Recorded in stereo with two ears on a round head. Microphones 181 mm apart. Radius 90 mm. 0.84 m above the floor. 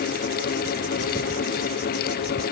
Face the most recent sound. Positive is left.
No sound to turn to.